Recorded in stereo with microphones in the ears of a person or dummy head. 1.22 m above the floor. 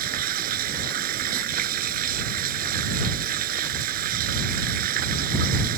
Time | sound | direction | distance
0.0 | running water | 55° right (ahead or behind) | ?